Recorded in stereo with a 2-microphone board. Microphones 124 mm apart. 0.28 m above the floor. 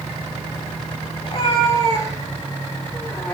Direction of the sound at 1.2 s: 40° left (ahead or behind).